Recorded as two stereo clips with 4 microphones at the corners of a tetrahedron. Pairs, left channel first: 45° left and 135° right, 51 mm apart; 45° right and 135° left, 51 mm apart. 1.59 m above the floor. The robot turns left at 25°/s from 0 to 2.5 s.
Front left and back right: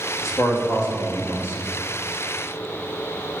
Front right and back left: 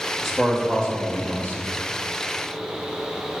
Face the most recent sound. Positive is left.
turn(degrees=-10)